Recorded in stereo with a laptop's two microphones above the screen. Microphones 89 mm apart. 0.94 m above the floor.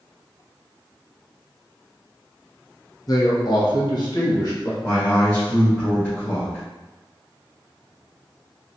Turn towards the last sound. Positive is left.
turn(degrees=30)  # may be behind; listen again after turning